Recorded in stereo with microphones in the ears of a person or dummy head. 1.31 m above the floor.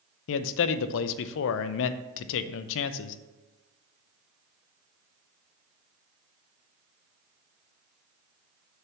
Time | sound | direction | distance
0.3 | a man speaking | 70° left (ahead or behind) | 0.6 m